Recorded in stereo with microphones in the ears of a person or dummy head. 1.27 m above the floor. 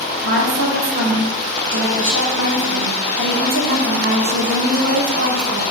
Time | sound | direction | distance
0.2 | a woman speaking | 75° right (ahead or behind) | 1.3 m